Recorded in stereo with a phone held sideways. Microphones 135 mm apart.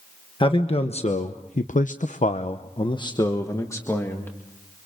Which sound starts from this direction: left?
A man speaking, at 0.4 s.